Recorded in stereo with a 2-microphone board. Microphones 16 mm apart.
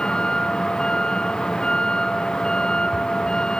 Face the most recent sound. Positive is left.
turn(degrees=50)  # may be behind; listen again after turning